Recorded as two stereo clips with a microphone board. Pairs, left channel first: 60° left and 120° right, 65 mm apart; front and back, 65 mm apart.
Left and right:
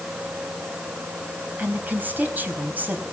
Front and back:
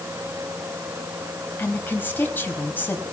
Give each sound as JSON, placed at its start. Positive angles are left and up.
{"t": 1.6, "sound": "a woman speaking", "azimuth_deg": -60, "distance_m": 3.5}